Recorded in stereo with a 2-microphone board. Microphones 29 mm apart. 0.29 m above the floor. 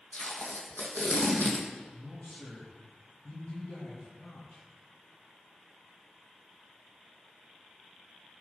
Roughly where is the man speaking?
Left.